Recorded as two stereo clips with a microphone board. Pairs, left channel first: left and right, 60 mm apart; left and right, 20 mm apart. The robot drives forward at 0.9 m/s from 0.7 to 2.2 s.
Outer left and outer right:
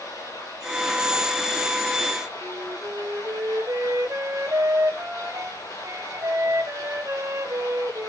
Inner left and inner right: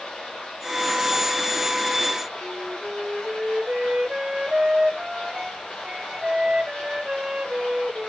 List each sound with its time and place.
0.0 s running water: 70° left (ahead or behind), 9.5 m; by 8.1 s 75° left (ahead or behind), 9 m
2.4 s a flute: 55° right (ahead or behind), 0.9 m